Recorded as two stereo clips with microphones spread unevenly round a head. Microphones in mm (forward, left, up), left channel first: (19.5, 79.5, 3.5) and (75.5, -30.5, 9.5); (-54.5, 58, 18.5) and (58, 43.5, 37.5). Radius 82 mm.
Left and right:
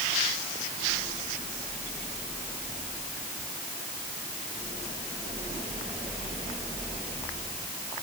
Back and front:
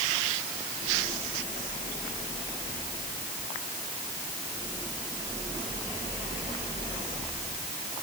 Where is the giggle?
No giggle in this recording.